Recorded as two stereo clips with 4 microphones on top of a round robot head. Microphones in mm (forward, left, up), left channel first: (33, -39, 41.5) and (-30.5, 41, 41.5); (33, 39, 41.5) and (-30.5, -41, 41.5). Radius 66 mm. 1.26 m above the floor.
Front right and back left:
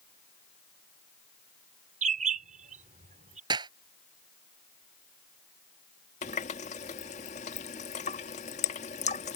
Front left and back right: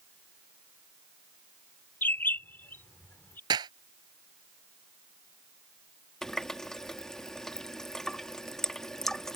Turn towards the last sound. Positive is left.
turn(degrees=-35)